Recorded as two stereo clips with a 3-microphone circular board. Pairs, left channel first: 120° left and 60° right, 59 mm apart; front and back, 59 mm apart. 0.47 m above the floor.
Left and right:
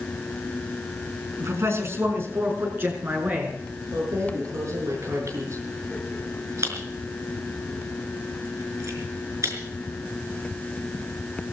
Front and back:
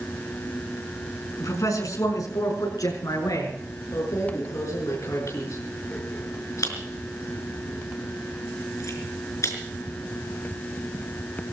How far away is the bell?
No bell in this recording.